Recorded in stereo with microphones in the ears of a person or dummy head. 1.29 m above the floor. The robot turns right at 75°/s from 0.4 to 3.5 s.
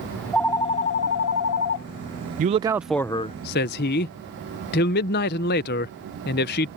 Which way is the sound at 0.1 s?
10° left.